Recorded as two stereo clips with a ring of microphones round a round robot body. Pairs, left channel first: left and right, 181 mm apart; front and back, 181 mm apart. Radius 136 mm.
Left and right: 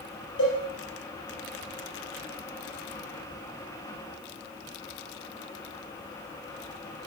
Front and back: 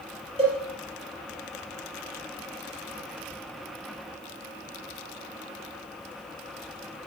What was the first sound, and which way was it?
A cowbell, 120° left.